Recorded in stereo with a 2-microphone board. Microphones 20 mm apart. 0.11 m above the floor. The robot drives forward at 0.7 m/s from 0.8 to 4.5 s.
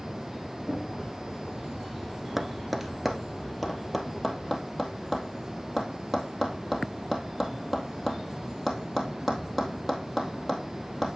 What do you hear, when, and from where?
0.7 s knocking: 45° right (ahead or behind), 4.5 m
2.4 s tapping: 10° right (ahead or behind), 0.9 m; by 11.1 s 5° right (ahead or behind), 2 m